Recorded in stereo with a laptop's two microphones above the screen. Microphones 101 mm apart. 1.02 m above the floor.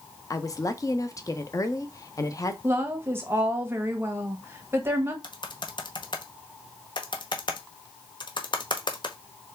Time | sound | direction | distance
0.3 | a woman speaking | 35° left (ahead or behind) | 0.6 m
2.6 | a woman speaking | 25° right (ahead or behind) | 1.3 m
5.2 | typing on a keyboard | 55° left (ahead or behind) | 0.8 m